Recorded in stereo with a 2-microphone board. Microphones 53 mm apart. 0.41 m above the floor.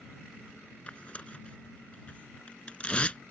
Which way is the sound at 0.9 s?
20° left (ahead or behind).